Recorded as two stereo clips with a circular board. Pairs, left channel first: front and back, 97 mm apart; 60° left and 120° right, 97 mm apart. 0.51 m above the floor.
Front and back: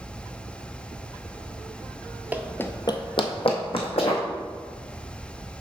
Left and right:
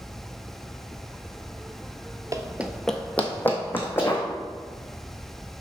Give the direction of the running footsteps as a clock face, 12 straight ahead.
4 o'clock.